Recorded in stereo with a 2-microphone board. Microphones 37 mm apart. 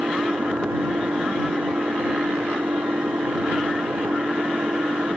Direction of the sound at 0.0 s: 75° right (ahead or behind).